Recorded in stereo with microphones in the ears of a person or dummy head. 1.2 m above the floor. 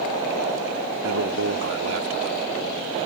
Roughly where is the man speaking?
Right.